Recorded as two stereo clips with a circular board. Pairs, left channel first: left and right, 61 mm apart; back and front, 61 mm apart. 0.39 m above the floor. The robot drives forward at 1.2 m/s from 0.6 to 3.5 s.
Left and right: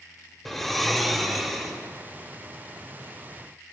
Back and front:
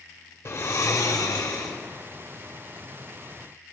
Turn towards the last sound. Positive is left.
turn(degrees=180)